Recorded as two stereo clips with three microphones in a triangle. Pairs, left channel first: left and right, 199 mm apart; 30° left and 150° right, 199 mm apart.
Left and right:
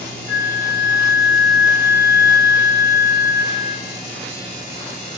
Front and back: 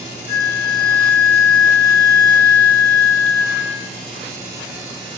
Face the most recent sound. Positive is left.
turn(degrees=160)